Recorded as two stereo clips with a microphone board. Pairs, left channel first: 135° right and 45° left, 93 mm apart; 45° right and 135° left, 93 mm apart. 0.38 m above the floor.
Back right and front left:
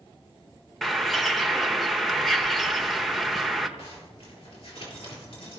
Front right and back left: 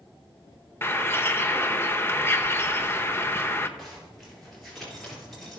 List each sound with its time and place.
0.8 s a bird: 50° right, 0.9 m
3.8 s a zipper: 135° right, 4 m